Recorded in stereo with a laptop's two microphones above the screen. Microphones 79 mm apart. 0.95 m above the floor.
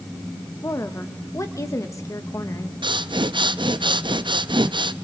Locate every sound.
0.6 s a woman speaking: 40° left (ahead or behind), 1.2 m
2.8 s breathing: 80° right, 0.7 m